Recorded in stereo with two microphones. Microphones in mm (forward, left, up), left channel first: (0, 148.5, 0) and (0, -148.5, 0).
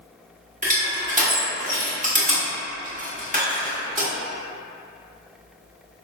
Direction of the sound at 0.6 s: 25° right (ahead or behind).